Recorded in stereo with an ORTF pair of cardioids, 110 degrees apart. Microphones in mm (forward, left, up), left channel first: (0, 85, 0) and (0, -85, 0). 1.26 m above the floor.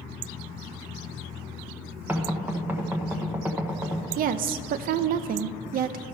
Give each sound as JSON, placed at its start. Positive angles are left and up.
{"t": 2.1, "sound": "knocking", "azimuth_deg": -10, "distance_m": 1.1}
{"t": 4.2, "sound": "a woman speaking", "azimuth_deg": -65, "distance_m": 0.6}